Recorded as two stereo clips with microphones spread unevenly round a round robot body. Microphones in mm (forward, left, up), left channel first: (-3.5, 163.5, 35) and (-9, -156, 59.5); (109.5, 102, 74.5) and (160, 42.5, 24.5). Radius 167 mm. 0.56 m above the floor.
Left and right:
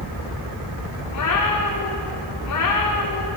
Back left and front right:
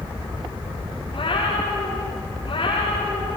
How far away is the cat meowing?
About 6.5 m.